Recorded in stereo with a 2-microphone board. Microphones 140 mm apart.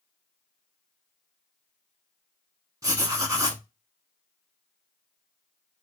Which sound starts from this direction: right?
Writing, at 2.8 s.